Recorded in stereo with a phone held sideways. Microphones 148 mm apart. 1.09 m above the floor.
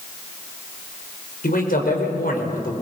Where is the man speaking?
80° left, 5.5 m.